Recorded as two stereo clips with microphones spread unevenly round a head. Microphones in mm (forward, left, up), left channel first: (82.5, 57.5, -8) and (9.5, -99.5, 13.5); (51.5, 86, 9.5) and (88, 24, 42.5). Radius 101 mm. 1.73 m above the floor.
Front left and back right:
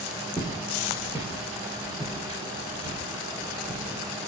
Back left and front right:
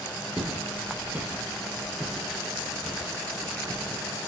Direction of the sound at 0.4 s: 45° right.